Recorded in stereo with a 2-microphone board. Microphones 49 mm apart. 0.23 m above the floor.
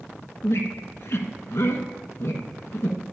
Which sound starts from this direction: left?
A squeak, at 0.4 s.